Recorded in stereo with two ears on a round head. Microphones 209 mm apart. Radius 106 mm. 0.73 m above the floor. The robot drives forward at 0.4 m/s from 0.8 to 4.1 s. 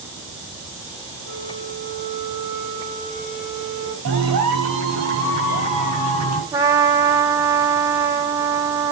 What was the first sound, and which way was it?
A flute, 55° right (ahead or behind).